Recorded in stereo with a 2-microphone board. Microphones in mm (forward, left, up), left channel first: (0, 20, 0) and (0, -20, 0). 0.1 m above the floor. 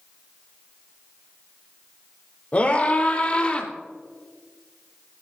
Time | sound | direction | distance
2.5 | a scream | 40° left (ahead or behind) | 4 m